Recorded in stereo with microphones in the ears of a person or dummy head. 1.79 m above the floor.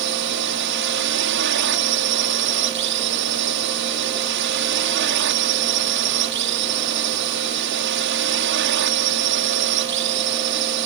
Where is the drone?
65° right (ahead or behind).